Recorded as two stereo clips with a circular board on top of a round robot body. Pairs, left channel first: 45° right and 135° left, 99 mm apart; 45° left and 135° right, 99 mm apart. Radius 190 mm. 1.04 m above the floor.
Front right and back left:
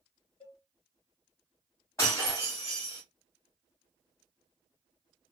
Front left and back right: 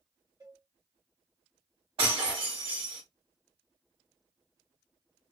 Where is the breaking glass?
105° right, 1.4 m.